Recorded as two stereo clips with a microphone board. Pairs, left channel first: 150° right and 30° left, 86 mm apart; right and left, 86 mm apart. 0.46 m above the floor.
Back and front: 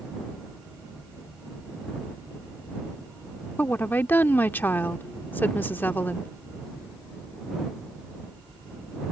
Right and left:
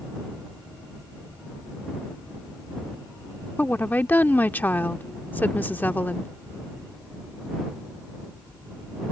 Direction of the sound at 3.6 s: 120° right.